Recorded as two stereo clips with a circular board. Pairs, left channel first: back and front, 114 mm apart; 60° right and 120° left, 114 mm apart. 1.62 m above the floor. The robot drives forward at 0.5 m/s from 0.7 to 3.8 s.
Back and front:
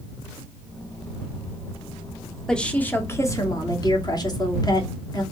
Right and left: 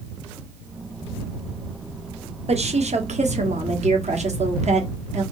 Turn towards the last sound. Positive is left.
turn(degrees=125)